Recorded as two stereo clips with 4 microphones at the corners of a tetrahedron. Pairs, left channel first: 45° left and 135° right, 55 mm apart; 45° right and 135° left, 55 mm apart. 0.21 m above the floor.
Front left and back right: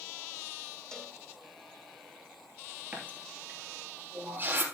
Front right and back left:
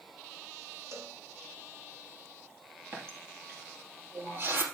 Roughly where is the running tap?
Behind.